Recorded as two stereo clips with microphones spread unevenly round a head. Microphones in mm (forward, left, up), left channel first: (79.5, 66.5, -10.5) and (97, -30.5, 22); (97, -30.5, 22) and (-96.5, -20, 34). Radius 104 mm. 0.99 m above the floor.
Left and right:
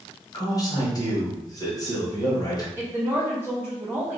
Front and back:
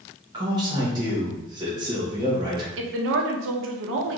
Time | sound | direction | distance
0.3 | a man speaking | 110° left | 1.0 m
2.8 | a woman speaking | 165° right | 0.7 m